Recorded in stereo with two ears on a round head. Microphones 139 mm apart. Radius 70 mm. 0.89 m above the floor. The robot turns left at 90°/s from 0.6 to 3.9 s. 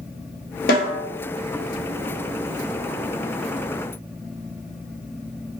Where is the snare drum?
65° left (ahead or behind), 0.7 m; by 1.0 s 40° left (ahead or behind), 0.7 m.